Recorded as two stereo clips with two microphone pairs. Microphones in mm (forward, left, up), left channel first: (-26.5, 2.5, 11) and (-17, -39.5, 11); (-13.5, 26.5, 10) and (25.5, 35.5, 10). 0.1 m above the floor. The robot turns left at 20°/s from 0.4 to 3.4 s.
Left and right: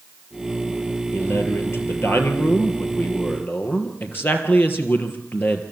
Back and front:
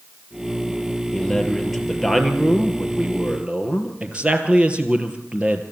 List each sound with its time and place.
1.1 s a man speaking: 115° left, 2.5 m; by 5.6 s 70° left, 2.5 m